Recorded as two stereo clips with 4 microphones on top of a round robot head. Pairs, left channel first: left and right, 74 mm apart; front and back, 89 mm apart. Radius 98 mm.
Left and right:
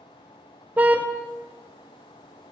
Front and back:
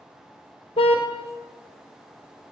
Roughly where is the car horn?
Ahead.